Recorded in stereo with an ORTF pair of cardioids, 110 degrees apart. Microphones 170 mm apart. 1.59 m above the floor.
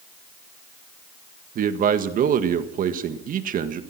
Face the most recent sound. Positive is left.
turn(degrees=-55)